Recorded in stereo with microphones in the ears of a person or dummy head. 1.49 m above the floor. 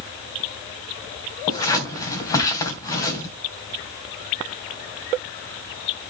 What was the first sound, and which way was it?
Scissors, 25° left (ahead or behind).